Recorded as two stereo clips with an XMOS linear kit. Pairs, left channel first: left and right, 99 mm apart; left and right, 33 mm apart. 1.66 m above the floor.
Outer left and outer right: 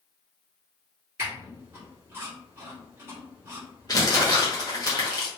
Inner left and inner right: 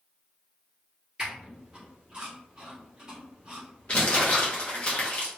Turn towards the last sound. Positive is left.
turn(degrees=40)  # may be behind; listen again after turning